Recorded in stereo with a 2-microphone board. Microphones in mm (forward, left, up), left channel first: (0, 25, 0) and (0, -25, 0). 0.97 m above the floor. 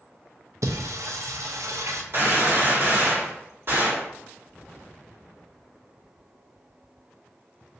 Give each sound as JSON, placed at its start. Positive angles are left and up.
{"t": 0.6, "sound": "singing", "side_deg": -75, "distance_m": 0.6}
{"t": 2.1, "sound": "a gunshot", "side_deg": -45, "distance_m": 1.7}